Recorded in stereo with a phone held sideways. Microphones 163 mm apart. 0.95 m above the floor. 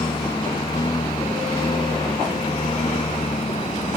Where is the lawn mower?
25° left (ahead or behind); by 4.0 s 40° left (ahead or behind).